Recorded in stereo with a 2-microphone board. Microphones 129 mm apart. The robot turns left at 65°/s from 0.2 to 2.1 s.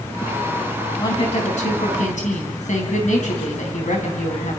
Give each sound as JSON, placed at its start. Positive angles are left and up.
{"t": 1.0, "sound": "a woman speaking", "azimuth_deg": 150, "distance_m": 4.5}